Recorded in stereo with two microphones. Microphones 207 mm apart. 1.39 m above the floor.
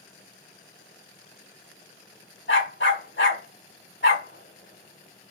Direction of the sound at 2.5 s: 65° left (ahead or behind).